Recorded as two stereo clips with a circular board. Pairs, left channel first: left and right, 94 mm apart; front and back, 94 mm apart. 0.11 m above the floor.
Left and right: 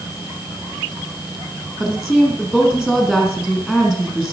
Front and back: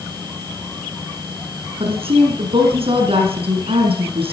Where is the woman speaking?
175° right, 3.5 m.